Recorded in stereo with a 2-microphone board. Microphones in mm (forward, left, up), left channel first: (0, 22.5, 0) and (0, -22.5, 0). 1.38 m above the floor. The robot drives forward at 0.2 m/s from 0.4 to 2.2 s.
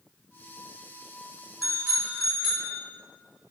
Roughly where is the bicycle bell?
Centre.